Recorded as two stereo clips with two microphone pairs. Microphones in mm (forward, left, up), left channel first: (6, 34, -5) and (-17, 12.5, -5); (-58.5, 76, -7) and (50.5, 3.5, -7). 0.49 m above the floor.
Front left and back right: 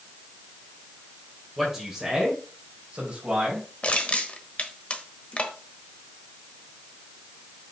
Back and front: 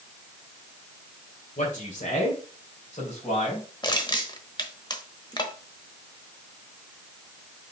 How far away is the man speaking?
About 2 m.